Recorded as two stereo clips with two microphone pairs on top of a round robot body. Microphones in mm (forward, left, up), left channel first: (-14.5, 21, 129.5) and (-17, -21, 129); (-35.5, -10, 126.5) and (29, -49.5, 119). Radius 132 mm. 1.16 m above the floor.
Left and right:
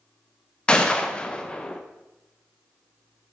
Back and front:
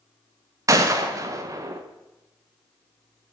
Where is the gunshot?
15° left, 1.0 m.